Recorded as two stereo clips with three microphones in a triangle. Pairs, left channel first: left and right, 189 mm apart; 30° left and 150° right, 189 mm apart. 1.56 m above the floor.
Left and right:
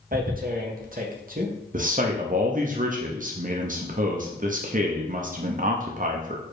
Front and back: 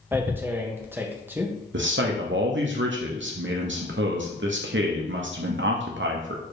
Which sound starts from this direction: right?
Tearing paper, at 0.1 s.